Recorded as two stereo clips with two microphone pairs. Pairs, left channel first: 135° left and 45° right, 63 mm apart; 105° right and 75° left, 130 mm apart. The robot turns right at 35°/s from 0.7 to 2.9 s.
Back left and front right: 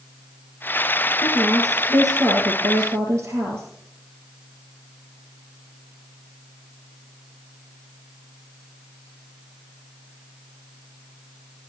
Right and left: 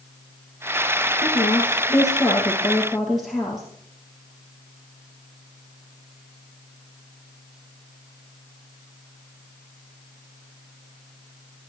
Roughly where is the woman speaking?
Right.